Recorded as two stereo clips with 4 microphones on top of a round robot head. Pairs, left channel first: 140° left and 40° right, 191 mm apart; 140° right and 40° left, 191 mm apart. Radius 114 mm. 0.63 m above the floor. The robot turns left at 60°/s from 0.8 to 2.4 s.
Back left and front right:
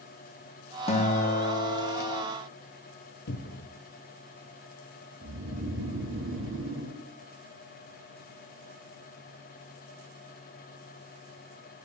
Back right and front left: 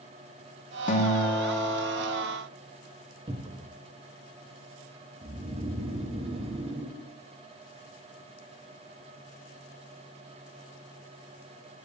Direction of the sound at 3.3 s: 105° left.